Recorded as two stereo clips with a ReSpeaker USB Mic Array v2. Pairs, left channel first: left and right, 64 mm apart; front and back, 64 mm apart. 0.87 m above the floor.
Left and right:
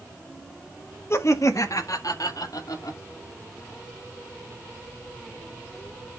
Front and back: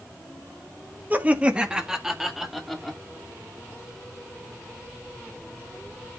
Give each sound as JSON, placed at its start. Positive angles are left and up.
{"t": 1.1, "sound": "laughter", "azimuth_deg": 125, "distance_m": 1.3}